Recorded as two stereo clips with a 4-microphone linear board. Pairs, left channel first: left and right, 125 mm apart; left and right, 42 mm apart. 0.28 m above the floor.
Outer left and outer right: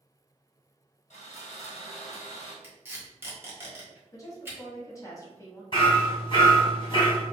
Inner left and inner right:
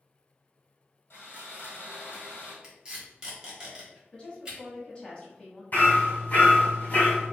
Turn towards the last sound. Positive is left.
turn(degrees=40)  # may be behind; listen again after turning